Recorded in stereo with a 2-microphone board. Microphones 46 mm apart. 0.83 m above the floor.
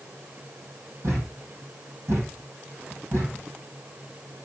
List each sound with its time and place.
1.0 s a thud: 75° right (ahead or behind), 7.5 m